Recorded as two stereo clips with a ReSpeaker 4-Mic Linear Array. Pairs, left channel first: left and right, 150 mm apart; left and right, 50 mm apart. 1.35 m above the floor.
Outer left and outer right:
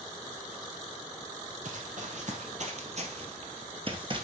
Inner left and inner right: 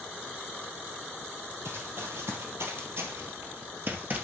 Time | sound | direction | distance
1.6 | running footsteps | 60° right (ahead or behind) | 2.5 m